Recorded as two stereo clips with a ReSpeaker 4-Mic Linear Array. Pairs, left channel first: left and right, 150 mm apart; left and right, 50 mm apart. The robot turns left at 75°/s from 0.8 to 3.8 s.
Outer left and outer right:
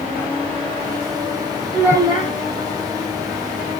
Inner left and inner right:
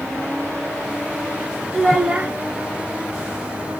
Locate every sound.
1.7 s a child speaking: 5° right, 1.7 m; by 2.3 s 50° right, 1.7 m